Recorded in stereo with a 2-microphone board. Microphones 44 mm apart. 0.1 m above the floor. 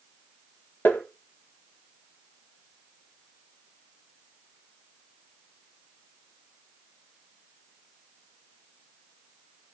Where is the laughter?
No laughter in this recording.